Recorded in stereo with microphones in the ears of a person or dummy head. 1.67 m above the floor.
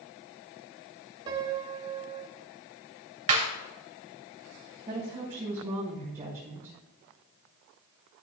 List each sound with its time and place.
1.3 s a piano: 20° right (ahead or behind), 1.5 m
3.3 s a clap: 40° right (ahead or behind), 2.5 m
4.9 s a woman speaking: 20° right (ahead or behind), 5.5 m